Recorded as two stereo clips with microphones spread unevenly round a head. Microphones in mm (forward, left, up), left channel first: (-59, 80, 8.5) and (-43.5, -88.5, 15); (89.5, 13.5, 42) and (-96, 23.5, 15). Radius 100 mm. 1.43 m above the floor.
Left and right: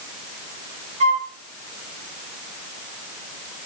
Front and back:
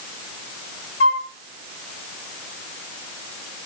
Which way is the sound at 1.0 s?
30° right.